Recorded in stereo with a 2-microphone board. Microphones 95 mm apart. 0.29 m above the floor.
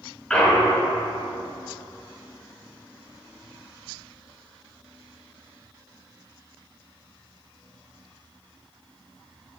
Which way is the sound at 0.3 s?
5° left (ahead or behind).